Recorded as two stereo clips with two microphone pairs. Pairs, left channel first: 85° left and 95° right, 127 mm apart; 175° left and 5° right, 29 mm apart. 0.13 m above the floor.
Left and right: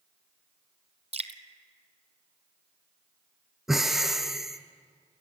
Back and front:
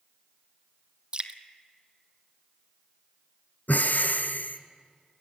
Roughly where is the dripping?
Ahead right.